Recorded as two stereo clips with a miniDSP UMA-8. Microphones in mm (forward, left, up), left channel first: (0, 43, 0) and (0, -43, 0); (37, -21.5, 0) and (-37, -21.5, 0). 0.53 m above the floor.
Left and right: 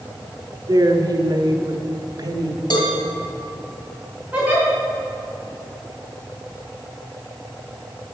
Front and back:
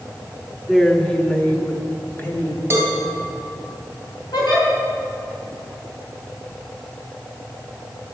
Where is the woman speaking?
90° right, 1.1 m; by 2.6 s 55° right, 1.9 m.